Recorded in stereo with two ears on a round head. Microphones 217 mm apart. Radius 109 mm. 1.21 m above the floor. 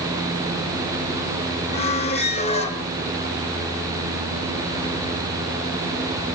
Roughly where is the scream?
I don't hear a scream.